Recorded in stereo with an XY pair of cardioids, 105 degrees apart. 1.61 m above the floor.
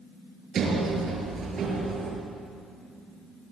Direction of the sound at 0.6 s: 55° right.